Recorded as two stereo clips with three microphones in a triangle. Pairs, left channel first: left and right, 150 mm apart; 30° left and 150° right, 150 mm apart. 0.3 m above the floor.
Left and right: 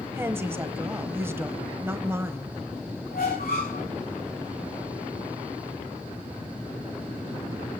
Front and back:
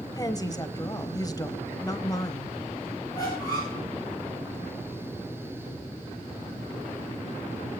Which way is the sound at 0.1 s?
25° right.